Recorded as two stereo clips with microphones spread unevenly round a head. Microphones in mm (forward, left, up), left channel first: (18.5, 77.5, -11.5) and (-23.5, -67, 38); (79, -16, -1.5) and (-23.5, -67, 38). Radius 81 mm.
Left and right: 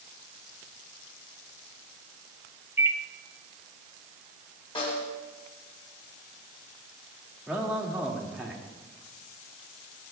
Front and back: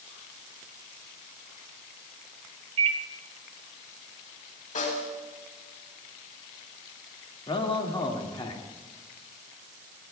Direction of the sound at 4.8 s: 10° left.